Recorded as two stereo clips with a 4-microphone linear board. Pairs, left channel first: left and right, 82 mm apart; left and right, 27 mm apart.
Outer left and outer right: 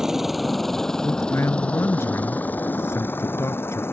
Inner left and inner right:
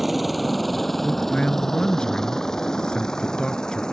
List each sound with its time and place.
0.0 s a helicopter: 5° right (ahead or behind); by 3.9 s 30° left (ahead or behind)
1.0 s a man speaking: 35° left (ahead or behind)